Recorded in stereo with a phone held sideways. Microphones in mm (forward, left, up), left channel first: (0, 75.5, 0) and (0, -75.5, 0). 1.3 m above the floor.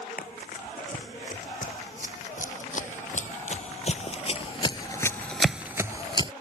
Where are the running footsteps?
60° left (ahead or behind); by 6.3 s 35° right (ahead or behind).